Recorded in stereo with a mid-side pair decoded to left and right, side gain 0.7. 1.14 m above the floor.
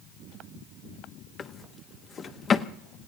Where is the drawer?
30° left, 0.9 m.